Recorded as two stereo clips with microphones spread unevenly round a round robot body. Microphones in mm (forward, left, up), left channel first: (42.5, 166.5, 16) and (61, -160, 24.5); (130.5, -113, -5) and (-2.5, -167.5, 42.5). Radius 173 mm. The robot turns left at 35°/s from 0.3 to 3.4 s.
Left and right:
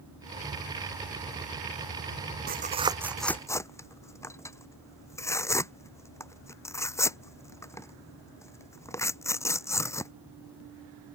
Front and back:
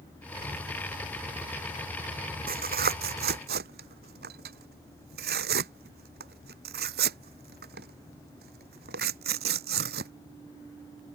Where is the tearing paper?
150° right; by 10.1 s 175° left.